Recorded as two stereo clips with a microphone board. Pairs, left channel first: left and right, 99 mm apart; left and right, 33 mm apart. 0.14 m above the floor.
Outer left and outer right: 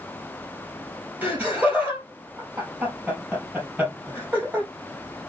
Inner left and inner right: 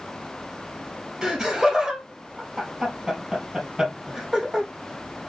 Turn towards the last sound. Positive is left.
turn(degrees=-20)  # may be behind; listen again after turning